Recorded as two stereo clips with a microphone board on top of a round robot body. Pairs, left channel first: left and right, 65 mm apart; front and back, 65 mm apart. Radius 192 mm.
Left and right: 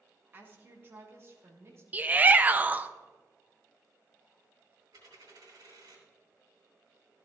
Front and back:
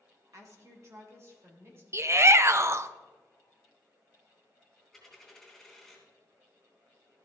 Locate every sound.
0.3 s a woman speaking: 145° right, 2.5 m; by 1.8 s 135° right, 3.5 m
1.9 s a shout: 145° right, 0.8 m
4.9 s a dropped coin: 90° right, 4 m